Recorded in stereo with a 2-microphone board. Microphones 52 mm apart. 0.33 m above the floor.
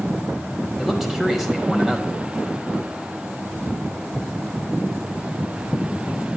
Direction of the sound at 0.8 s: 5° right (ahead or behind).